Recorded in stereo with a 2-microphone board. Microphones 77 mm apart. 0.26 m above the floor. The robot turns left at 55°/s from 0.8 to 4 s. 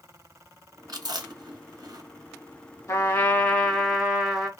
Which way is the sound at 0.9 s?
60° right (ahead or behind).